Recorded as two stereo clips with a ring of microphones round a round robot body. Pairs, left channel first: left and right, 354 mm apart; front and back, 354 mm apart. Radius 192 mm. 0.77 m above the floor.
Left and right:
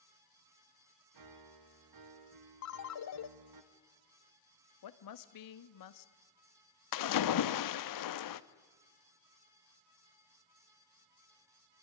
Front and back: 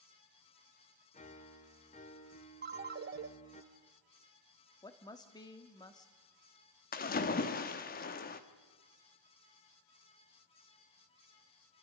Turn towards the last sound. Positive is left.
turn(degrees=65)